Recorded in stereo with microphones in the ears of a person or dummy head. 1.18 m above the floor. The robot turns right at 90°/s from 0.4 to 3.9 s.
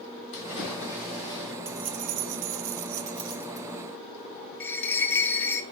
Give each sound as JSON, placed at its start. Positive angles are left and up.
{"t": 0.3, "sound": "a splash", "azimuth_deg": 70, "distance_m": 3.0}
{"t": 1.6, "sound": "keys jangling", "azimuth_deg": -170, "distance_m": 0.5}
{"t": 4.6, "sound": "a bell", "side_deg": 10, "distance_m": 0.7}